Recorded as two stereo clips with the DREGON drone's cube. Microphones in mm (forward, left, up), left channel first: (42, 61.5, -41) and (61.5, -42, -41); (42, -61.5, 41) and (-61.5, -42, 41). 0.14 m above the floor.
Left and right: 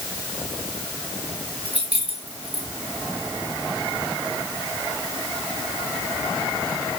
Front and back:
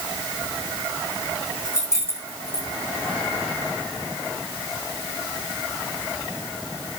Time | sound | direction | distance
1.6 | keys jangling | 70° right | 8 m